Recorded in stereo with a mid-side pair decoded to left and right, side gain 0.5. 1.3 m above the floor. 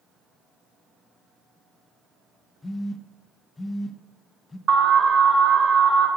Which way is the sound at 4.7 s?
40° right.